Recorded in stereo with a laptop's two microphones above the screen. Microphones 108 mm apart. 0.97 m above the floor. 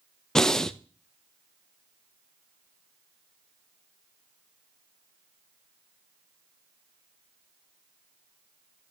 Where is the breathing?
5° left (ahead or behind), 0.5 m.